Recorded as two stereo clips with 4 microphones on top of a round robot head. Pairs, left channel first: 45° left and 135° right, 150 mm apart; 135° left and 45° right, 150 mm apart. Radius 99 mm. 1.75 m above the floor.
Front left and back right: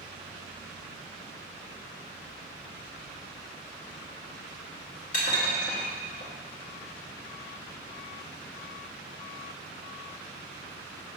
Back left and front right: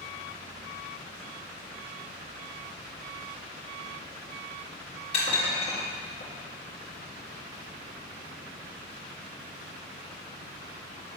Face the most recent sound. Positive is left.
turn(degrees=85)